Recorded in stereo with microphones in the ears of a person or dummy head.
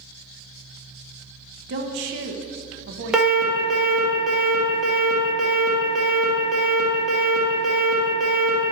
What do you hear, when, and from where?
1.7 s a woman speaking: 65° right (ahead or behind), 0.8 m
3.1 s an alarm: 5° right (ahead or behind), 1.6 m